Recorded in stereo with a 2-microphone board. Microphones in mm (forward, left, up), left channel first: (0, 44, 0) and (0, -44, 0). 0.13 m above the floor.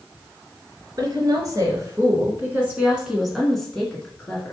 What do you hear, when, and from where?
1.0 s a woman speaking: 45° right (ahead or behind), 1.9 m; by 4.5 s 25° left (ahead or behind), 1.6 m